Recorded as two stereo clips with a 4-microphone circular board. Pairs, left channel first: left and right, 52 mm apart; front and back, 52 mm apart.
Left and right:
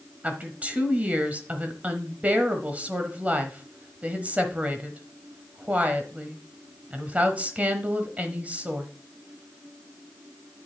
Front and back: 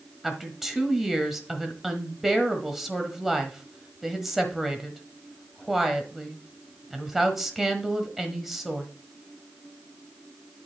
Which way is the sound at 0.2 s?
105° right.